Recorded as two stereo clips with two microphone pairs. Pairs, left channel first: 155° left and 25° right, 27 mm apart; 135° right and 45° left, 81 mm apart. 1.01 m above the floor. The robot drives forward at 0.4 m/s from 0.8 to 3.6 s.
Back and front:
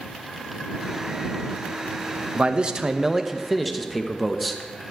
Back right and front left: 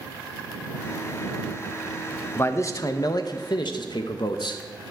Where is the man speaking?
75° right, 0.7 m; by 4.6 s 120° right, 0.7 m.